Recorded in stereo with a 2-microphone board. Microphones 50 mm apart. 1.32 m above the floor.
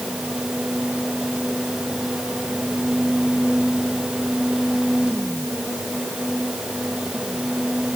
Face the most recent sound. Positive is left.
No sound to turn to.